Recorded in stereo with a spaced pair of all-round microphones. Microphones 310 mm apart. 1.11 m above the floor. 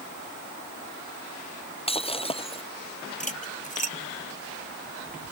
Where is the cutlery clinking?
25° left (ahead or behind).